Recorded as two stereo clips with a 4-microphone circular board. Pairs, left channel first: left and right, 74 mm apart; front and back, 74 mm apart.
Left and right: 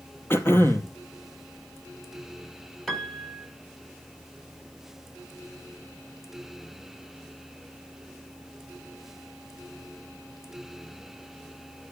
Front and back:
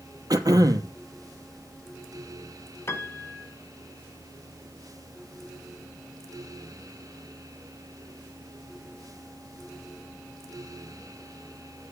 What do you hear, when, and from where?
0.3 s throat clearing: 145° left, 0.8 m
2.9 s a piano: 5° left, 1.4 m